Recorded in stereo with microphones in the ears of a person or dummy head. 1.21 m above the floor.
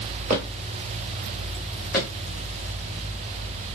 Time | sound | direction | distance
0.3 | footsteps | 35° right (ahead or behind) | 1.6 m